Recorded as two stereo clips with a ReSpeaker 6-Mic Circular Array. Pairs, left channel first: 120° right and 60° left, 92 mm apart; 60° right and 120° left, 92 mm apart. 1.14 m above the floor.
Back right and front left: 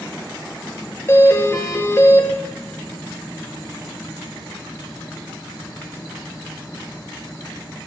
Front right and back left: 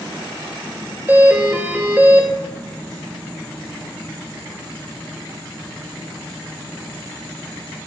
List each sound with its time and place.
1.1 s a doorbell: 175° right, 1.2 m